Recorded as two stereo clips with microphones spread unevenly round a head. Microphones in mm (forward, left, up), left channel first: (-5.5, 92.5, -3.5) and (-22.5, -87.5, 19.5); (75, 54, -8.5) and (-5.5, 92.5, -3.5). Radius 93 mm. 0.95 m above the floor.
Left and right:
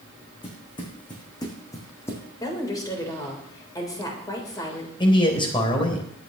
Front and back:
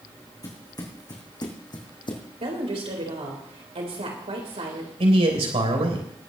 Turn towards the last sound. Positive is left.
turn(degrees=150)